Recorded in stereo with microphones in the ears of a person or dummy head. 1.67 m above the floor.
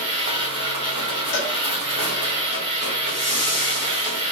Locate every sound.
0.0 s a machine running: 25° right (ahead or behind), 1.0 m
1.3 s a cowbell: 70° left (ahead or behind), 0.9 m
3.1 s a whoosh: 25° right (ahead or behind), 1.6 m